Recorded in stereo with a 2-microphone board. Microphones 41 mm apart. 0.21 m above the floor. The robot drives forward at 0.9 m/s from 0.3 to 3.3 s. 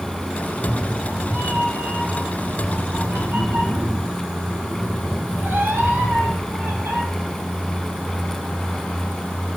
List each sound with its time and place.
0.5 s a cat meowing: 60° right (ahead or behind), 4 m; by 7.0 s 75° right (ahead or behind), 3.5 m